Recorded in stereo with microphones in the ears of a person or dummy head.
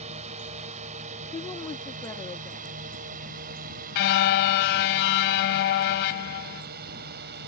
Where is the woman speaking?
15° left (ahead or behind).